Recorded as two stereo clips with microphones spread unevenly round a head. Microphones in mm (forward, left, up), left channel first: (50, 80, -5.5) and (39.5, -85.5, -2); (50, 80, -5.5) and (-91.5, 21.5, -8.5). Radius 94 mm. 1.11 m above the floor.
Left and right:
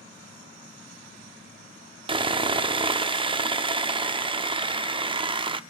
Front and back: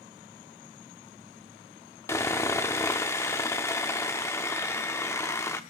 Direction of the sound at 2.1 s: 45° right.